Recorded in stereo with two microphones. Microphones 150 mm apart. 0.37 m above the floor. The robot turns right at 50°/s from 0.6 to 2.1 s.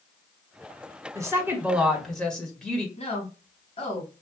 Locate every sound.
1.1 s a woman speaking: 40° right, 1.5 m; by 2.9 s 10° left, 1.5 m
3.0 s a woman speaking: 50° left (ahead or behind), 3 m